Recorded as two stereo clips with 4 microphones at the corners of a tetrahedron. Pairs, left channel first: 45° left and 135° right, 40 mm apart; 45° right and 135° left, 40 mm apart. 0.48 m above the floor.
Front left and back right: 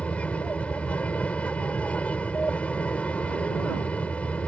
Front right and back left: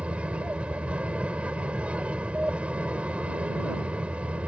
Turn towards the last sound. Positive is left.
turn(degrees=85)